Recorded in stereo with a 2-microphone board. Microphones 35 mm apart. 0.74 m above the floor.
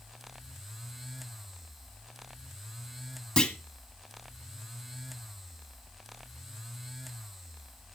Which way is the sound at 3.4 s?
25° left (ahead or behind).